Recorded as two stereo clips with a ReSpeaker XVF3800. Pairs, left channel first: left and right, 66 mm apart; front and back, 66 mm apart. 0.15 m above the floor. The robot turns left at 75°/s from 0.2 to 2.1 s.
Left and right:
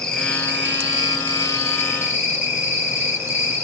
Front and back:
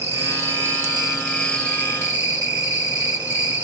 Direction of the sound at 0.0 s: 170° left.